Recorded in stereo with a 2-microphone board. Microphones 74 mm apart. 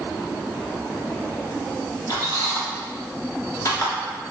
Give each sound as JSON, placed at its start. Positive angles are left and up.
{"t": 2.1, "sound": "a squeak", "side_deg": 50, "distance_m": 1.1}